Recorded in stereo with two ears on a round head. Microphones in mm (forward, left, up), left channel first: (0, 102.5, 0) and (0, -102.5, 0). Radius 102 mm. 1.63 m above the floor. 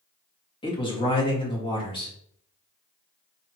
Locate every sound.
0.6 s a man speaking: 25° left (ahead or behind), 1.7 m